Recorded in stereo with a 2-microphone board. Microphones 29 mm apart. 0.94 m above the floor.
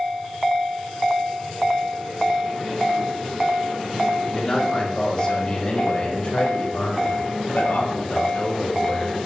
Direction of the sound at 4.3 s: 20° left (ahead or behind).